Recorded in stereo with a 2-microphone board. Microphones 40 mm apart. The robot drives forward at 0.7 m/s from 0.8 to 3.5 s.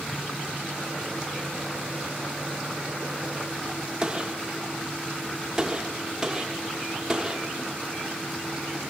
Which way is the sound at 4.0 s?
15° right (ahead or behind).